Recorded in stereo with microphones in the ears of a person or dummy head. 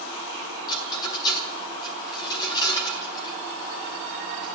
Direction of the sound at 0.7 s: 25° left (ahead or behind).